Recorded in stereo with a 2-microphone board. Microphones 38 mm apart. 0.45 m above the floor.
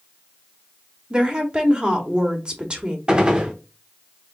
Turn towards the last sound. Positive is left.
turn(degrees=-25)  # may be behind; listen again after turning